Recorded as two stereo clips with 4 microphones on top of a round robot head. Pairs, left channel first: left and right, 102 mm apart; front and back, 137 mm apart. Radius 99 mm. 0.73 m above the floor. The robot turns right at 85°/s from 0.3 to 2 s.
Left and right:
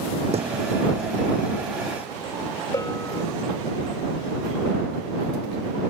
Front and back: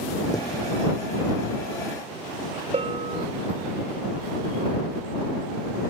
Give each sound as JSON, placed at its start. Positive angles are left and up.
{"t": 0.3, "sound": "a thud", "azimuth_deg": -70}
{"t": 2.7, "sound": "a bell", "azimuth_deg": 145}